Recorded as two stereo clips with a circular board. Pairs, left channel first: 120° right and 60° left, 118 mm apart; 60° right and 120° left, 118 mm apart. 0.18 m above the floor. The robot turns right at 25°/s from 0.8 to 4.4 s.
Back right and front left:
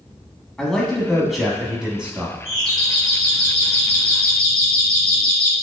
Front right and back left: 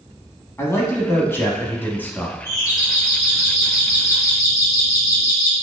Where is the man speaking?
40° right, 1.0 m; by 2.4 s 5° right, 1.0 m.